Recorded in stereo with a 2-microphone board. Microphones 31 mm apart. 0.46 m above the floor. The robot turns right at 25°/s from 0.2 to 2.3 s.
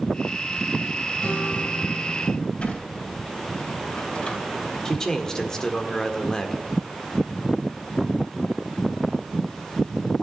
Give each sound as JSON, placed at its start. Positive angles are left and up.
{"t": 1.2, "sound": "a guitar", "side_deg": 40, "distance_m": 2.5}
{"t": 2.6, "sound": "a sliding door", "side_deg": 45, "distance_m": 3.5}
{"t": 4.8, "sound": "a man speaking", "side_deg": 20, "distance_m": 1.5}